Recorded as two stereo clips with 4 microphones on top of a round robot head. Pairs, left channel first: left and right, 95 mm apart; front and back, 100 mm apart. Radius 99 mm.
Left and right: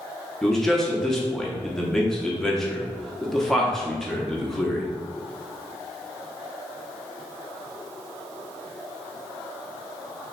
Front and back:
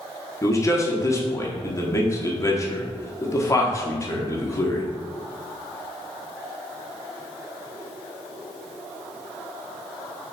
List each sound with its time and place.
0.4 s a man speaking: 5° left, 0.9 m